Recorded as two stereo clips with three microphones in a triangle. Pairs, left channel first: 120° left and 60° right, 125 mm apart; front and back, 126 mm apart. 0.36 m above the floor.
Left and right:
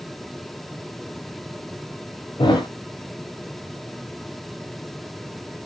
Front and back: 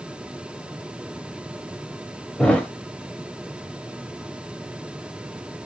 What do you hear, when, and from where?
2.4 s a thud: 80° left, 0.8 m